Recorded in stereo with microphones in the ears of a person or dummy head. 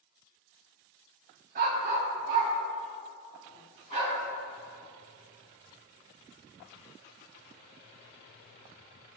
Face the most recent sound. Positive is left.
turn(degrees=-40)  # may be behind; listen again after turning